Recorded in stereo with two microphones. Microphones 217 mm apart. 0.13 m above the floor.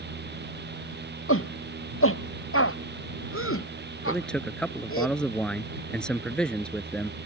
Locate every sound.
1.3 s a shout: 75° left (ahead or behind)
4.1 s a man speaking: 5° left (ahead or behind)